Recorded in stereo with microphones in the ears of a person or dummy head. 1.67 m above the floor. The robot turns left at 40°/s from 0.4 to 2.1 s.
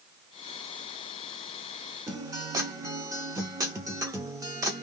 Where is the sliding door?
No sliding door in this recording.